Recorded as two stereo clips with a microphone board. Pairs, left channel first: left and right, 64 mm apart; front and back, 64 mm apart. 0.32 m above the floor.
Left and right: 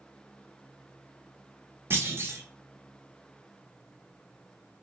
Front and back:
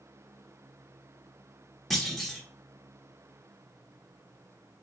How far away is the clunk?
About 0.9 m.